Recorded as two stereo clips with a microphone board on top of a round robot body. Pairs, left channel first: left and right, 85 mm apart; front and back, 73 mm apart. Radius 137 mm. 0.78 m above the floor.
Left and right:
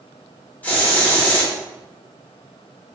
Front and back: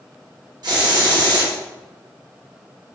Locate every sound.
0.6 s a hiss: 160° left, 1.0 m